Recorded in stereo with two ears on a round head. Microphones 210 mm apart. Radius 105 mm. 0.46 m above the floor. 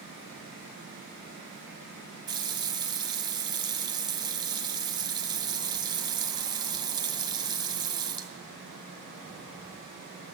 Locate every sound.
2.3 s a running tap: 20° right (ahead or behind), 1.7 m